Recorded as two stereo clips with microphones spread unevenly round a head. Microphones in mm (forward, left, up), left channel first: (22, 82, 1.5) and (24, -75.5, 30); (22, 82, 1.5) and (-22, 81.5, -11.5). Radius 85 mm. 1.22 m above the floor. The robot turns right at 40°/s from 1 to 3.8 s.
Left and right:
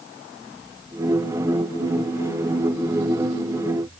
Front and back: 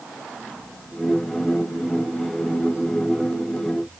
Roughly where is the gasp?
I don't hear a gasp.